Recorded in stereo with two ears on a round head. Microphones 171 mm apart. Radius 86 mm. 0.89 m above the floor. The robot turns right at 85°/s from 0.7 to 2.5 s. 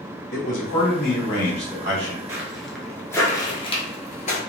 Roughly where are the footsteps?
Centre.